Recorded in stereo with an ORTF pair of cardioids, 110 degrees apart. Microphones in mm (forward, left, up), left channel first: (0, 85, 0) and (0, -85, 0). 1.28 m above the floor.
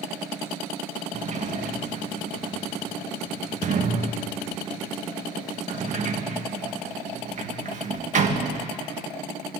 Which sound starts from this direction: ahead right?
A sliding door, at 1.1 s.